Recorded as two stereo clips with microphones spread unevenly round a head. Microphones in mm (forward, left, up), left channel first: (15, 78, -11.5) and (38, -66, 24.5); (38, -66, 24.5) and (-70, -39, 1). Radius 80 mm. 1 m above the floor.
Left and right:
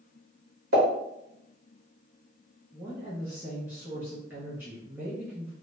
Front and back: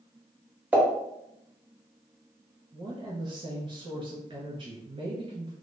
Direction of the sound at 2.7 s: 165° right.